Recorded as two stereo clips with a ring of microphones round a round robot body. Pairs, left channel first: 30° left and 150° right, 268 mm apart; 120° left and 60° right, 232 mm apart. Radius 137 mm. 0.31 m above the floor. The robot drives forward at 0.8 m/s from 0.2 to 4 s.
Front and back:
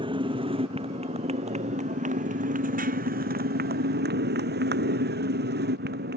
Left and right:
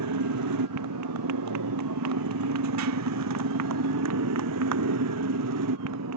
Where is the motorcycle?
75° right; by 6.2 s 95° right.